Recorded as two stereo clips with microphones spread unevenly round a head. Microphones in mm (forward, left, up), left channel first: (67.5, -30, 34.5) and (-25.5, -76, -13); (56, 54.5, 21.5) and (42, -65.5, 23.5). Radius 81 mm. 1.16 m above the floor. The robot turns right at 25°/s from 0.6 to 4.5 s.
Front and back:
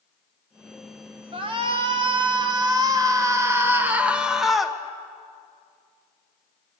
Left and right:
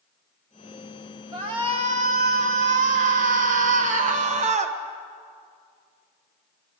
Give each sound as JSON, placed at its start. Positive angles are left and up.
{"t": 1.3, "sound": "a shout", "azimuth_deg": -155, "distance_m": 1.7}